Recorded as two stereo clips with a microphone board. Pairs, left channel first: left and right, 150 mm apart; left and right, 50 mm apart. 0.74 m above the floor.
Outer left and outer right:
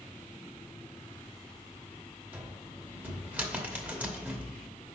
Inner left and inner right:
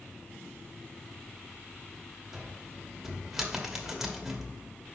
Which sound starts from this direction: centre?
A cupboard door, at 2.3 s.